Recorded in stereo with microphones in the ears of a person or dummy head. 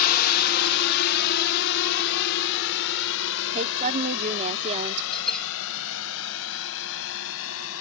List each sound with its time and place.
0.0 s a drone: 50° left (ahead or behind); by 7.8 s 75° left (ahead or behind)
3.5 s a woman speaking: 35° right (ahead or behind)
5.1 s a bell: 5° left (ahead or behind)